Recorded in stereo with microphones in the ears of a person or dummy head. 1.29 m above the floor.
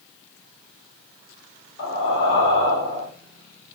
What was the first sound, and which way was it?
Breathing, 60° left (ahead or behind).